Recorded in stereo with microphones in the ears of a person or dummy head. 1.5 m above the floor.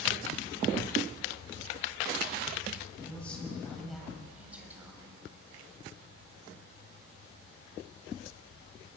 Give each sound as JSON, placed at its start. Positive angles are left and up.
{"t": 2.9, "sound": "a man speaking", "side_deg": 10, "distance_m": 8.0}